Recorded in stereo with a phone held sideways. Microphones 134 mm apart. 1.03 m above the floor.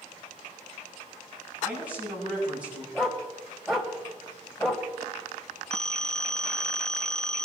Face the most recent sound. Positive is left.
turn(degrees=5)  # may be behind; listen again after turning